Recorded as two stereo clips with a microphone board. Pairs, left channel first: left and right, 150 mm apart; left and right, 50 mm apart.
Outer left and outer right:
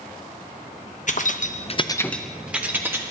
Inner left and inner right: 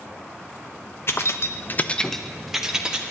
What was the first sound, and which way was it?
Keys jangling, 55° left (ahead or behind).